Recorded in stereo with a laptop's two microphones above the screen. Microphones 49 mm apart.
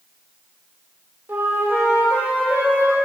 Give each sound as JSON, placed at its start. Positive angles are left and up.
{"t": 1.3, "sound": "a flute", "side_deg": -45, "distance_m": 1.6}